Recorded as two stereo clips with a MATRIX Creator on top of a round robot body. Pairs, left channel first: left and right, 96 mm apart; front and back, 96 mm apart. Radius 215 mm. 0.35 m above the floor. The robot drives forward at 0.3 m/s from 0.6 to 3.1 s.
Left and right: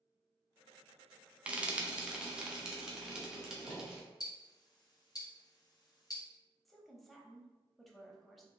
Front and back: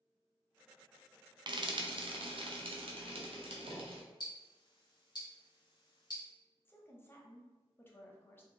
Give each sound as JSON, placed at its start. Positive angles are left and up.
{"t": 1.5, "sound": "frying", "azimuth_deg": -165, "distance_m": 0.7}
{"t": 4.2, "sound": "ticking", "azimuth_deg": 40, "distance_m": 1.0}
{"t": 6.7, "sound": "a woman speaking", "azimuth_deg": 0, "distance_m": 1.1}